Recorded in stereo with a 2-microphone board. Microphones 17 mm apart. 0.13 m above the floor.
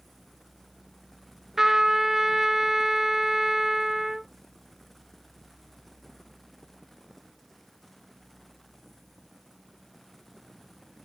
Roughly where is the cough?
No cough in this recording.